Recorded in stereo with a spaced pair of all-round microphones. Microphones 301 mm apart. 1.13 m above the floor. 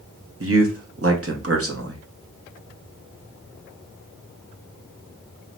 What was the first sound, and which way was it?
A man speaking, 45° right (ahead or behind).